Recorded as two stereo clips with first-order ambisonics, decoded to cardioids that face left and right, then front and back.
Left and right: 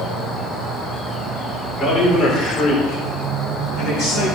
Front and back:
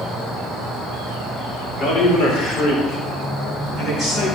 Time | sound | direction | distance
1.7 | a man speaking | 10° left | 3.5 m